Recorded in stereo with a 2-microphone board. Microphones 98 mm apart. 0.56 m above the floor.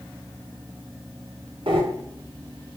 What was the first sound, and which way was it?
Breathing, 65° right (ahead or behind).